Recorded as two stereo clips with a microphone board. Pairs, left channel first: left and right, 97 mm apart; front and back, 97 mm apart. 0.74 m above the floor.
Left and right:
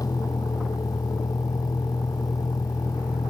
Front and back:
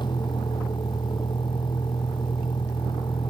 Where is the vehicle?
40° left.